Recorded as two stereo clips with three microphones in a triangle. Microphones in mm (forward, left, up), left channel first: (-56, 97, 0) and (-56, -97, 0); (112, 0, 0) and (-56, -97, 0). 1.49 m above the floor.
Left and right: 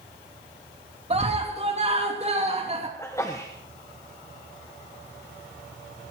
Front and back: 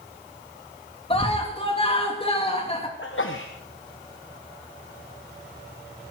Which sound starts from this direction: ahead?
A sneeze, at 3.0 s.